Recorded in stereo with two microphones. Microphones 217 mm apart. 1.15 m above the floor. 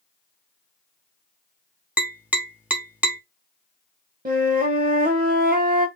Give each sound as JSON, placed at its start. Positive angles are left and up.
{"t": 2.0, "sound": "tapping", "side_deg": -5, "distance_m": 1.0}
{"t": 4.2, "sound": "a flute", "side_deg": -40, "distance_m": 1.1}